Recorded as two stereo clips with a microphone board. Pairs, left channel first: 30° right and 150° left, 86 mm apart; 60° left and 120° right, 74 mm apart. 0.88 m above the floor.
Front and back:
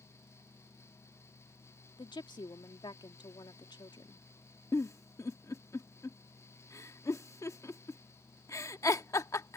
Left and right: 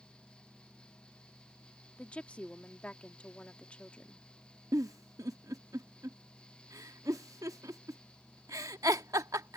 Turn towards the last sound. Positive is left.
turn(degrees=-80)